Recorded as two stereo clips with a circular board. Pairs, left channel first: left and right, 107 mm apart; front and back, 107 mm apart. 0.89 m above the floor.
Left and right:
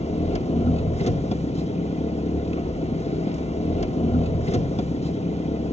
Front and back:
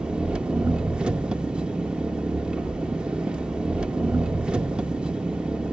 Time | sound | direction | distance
0.0 | an engine running | 100° left | 0.9 m